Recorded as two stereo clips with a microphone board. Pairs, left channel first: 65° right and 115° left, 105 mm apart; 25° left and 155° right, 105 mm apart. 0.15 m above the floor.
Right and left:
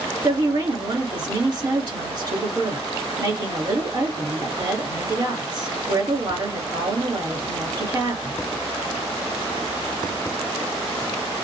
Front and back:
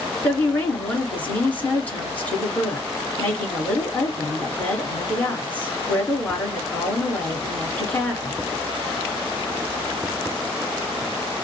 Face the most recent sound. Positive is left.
turn(degrees=95)